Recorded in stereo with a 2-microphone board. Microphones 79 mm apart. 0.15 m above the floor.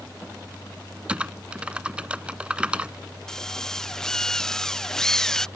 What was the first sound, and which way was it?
Typing on a keyboard, 15° right (ahead or behind).